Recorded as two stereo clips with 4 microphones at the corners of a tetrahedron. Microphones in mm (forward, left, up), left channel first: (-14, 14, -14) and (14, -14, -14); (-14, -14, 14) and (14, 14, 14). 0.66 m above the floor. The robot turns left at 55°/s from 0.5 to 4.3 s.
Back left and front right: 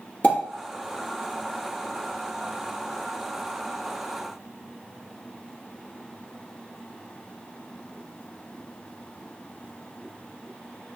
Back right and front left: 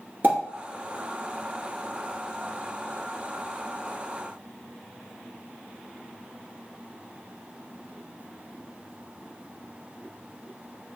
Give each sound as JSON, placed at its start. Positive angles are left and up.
{"t": 0.2, "sound": "a pop", "azimuth_deg": 85, "distance_m": 2.0}